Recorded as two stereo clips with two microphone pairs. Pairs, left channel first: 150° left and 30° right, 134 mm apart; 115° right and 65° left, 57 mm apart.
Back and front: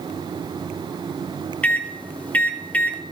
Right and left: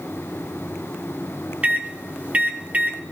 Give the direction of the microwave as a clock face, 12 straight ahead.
9 o'clock.